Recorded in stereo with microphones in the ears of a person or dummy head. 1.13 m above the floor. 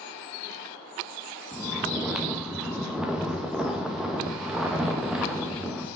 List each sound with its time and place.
1.5 s snoring: 5° right (ahead or behind), 1.1 m